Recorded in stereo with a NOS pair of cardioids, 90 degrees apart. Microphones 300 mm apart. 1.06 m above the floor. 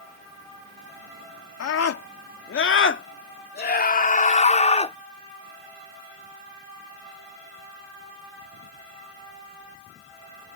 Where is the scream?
60° left; by 5.0 s 20° left.